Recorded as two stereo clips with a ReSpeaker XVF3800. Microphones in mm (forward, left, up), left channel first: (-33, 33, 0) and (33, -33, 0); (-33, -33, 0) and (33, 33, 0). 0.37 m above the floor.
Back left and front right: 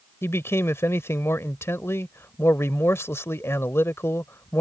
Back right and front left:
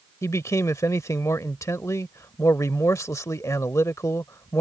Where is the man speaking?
175° right.